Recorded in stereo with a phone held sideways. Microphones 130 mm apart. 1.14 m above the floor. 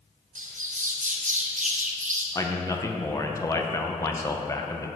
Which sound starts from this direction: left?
A man speaking, at 2.4 s.